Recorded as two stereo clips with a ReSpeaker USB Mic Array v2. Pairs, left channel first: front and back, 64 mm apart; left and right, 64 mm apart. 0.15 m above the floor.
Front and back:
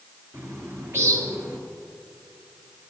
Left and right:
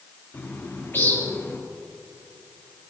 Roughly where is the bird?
Behind left.